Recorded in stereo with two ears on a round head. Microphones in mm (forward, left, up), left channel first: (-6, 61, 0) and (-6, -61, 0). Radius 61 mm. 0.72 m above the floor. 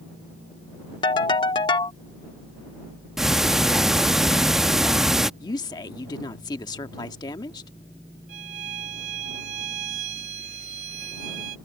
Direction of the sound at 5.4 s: 30° left (ahead or behind).